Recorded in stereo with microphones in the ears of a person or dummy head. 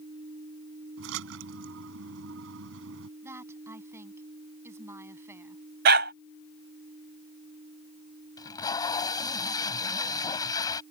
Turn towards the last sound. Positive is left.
turn(degrees=25)  # may be behind; listen again after turning